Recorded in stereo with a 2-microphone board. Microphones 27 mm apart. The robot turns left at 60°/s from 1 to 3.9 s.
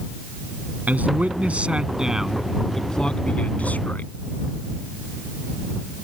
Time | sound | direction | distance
0.9 | a man speaking | 90° right | ?